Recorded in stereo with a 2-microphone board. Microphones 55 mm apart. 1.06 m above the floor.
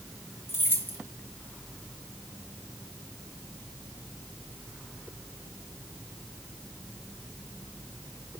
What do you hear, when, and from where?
0.5 s keys jangling: 40° left (ahead or behind), 1.4 m